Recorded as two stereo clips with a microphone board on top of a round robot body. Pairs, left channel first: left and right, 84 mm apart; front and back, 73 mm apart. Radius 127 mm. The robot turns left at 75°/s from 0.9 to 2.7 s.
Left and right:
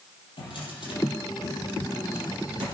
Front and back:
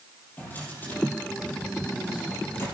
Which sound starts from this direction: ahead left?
A drawer, at 0.4 s.